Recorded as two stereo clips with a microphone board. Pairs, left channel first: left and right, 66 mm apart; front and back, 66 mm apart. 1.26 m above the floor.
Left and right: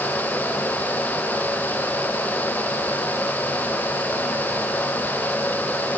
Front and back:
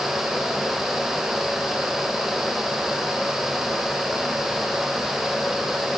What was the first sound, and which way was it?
Only background noise.